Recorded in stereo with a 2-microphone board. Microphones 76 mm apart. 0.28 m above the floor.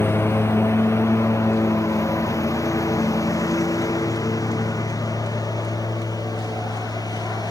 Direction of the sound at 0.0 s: 35° left (ahead or behind).